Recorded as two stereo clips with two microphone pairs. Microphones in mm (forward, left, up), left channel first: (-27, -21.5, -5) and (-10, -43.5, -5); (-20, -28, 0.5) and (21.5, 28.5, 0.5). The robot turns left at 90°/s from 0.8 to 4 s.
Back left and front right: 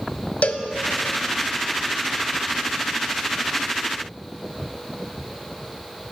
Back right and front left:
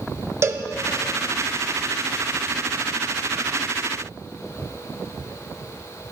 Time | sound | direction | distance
0.4 | a cowbell | 100° left | 0.5 m